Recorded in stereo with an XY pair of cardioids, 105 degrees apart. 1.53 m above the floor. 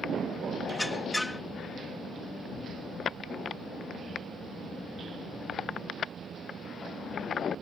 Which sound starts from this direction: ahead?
A squeak, at 0.7 s.